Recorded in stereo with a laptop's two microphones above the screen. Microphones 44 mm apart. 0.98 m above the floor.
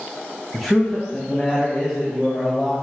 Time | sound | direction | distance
0.5 | a man speaking | 5° left (ahead or behind) | 0.6 m